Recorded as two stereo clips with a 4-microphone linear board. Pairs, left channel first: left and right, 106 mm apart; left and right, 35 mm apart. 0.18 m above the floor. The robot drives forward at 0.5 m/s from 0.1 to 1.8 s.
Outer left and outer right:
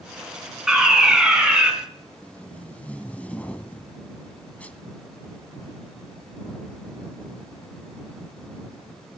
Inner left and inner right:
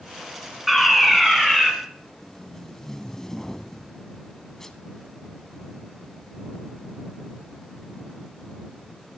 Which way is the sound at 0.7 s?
5° right (ahead or behind).